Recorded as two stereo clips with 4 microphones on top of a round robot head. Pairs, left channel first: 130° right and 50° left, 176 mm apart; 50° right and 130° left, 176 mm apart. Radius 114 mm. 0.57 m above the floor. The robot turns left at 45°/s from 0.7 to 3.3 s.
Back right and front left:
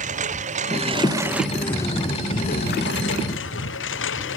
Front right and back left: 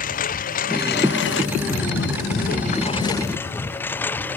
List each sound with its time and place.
0.0 s a lawn mower: 5° right; by 4.4 s 130° right